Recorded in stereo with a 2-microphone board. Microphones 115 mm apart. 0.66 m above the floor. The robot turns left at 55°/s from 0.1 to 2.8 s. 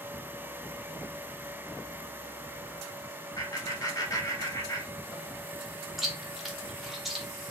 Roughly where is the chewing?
Centre.